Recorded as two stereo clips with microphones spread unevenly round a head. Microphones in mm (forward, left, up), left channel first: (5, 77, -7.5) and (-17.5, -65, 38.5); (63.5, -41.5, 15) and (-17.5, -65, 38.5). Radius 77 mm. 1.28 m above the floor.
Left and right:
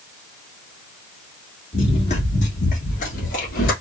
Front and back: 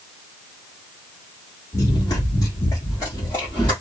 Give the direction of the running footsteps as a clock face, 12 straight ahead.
11 o'clock.